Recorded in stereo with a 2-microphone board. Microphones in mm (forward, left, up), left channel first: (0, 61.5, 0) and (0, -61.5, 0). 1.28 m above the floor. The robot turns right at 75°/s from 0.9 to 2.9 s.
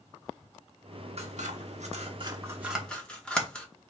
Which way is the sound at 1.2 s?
55° right (ahead or behind).